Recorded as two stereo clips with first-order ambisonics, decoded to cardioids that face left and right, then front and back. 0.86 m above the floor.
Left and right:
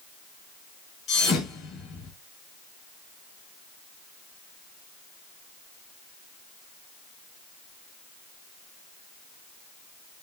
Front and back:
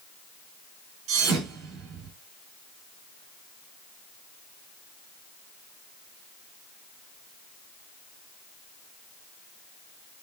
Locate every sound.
1.1 s a thud: 140° left, 4.5 m